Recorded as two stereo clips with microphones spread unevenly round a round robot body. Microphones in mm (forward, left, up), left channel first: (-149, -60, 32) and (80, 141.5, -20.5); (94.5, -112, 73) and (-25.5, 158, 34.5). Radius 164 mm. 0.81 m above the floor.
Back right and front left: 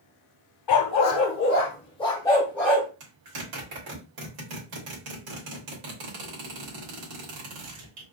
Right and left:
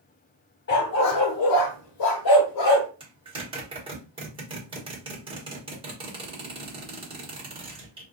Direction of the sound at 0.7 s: 120° right.